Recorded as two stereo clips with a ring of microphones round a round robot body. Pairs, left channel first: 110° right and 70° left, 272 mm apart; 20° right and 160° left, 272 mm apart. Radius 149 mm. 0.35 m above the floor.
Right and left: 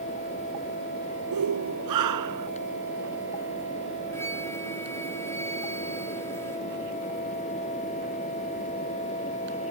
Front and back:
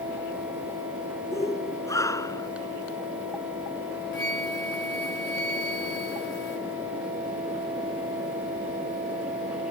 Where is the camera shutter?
No camera shutter in this recording.